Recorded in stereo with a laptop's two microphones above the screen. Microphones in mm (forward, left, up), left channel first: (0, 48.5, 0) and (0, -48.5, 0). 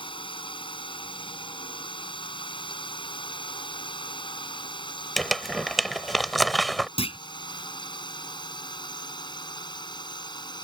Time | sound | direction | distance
0.0 | a drone | 60° left (ahead or behind) | ?
5.2 | crumpling | centre (ahead or behind) | ?
7.0 | a clunk | 80° left | ?